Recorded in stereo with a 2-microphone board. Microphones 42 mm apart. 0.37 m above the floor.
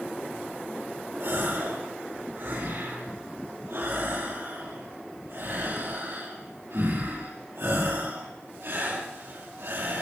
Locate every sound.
1.2 s a gasp: 70° right (ahead or behind), 9 m